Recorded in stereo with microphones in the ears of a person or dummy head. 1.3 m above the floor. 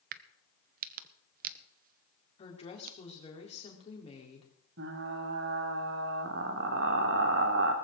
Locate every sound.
0.1 s a crack: 50° right (ahead or behind), 0.7 m
2.4 s a woman speaking: 35° left (ahead or behind), 3.5 m
4.8 s frying: 70° right (ahead or behind), 2 m